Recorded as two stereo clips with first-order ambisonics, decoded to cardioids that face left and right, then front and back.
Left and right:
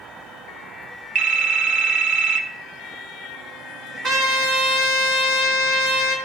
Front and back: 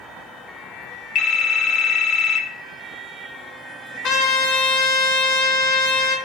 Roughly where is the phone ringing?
Ahead right.